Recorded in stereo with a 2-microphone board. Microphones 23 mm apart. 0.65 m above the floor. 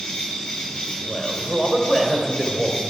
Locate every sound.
0.0 s an insect: 45° left (ahead or behind), 6 m
1.1 s a man speaking: 10° right (ahead or behind), 2.5 m